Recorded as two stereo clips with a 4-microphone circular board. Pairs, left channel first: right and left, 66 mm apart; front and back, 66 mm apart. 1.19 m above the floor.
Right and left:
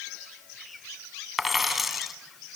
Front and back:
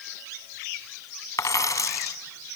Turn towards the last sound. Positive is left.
turn(degrees=5)